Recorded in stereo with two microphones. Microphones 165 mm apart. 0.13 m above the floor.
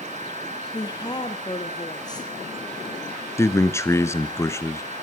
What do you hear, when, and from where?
0.7 s a woman speaking: 25° left (ahead or behind), 3 m
3.4 s a man speaking: 15° left (ahead or behind), 1.5 m